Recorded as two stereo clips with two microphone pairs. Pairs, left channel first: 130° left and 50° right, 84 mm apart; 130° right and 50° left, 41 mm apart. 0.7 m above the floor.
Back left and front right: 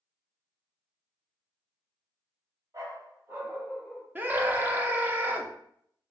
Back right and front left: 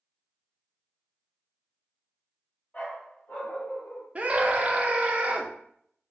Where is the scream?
5° left, 0.7 m.